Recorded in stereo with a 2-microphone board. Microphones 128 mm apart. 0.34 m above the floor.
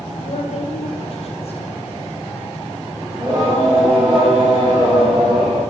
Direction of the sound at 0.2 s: 55° left (ahead or behind).